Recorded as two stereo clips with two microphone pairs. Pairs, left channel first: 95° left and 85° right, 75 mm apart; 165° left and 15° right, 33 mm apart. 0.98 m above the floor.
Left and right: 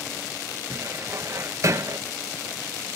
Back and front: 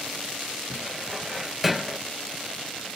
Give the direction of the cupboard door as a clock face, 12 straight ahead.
3 o'clock.